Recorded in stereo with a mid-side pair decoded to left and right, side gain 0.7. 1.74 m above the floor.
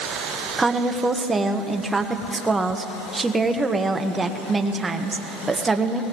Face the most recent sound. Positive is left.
turn(degrees=-15)